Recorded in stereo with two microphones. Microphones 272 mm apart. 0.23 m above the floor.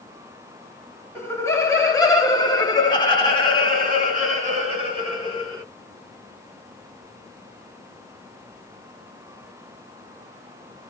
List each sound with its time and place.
1.1 s laughter: 10° left (ahead or behind), 1.5 m; by 5.6 s 15° left (ahead or behind), 2.5 m